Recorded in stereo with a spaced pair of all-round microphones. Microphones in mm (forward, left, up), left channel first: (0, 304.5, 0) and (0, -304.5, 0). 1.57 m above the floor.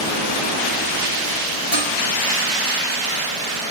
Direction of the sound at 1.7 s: 80° left.